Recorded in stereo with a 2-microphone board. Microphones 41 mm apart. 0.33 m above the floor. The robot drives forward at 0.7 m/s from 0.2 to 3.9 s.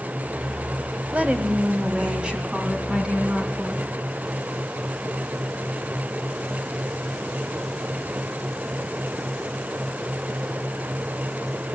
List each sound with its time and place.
1.1 s a woman speaking: 35° right (ahead or behind), 1.4 m; by 3.9 s 15° right (ahead or behind), 3 m